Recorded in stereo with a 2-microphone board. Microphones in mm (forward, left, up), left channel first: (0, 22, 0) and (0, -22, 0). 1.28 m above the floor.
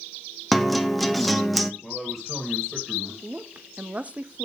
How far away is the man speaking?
About 2.5 m.